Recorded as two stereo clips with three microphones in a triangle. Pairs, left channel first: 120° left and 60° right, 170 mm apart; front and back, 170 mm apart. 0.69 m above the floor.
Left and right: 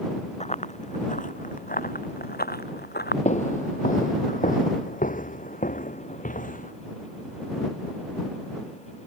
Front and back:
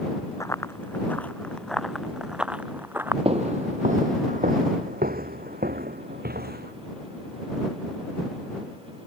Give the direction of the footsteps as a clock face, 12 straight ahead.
7 o'clock.